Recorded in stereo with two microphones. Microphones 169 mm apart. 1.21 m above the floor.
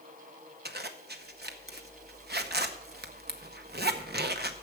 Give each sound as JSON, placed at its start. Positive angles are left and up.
{"t": 0.7, "sound": "a zipper", "side_deg": -75, "distance_m": 0.8}